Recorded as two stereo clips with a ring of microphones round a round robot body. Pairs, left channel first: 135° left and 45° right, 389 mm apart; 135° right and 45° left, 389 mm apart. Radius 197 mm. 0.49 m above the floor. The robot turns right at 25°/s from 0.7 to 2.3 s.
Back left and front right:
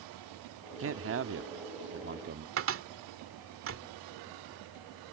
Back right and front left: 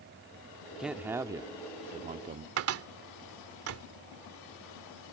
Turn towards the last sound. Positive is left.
turn(degrees=0)